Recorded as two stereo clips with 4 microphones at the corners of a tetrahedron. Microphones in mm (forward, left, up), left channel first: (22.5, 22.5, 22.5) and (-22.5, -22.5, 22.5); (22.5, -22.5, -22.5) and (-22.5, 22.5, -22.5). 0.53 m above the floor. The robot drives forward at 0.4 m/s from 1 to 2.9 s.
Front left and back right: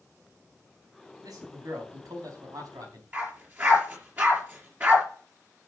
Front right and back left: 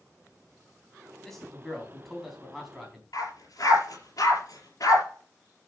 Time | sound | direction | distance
1.2 | a man speaking | 130° right | 4 m
3.1 | a dog barking | 75° right | 4.5 m